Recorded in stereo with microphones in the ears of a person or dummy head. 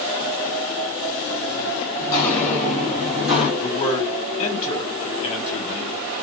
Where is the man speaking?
30° left (ahead or behind), 2 m.